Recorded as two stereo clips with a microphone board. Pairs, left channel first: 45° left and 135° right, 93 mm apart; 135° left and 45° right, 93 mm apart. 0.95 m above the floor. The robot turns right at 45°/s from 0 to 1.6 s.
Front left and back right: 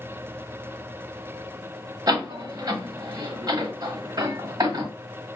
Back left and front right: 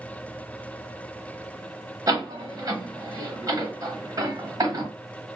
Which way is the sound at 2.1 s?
100° right.